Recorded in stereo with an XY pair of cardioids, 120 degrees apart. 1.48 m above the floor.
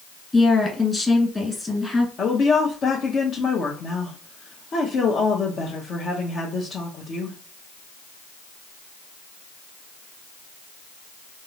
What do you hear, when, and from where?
0.3 s a woman speaking: 15° left, 1.6 m
2.2 s a woman speaking: 45° left, 0.8 m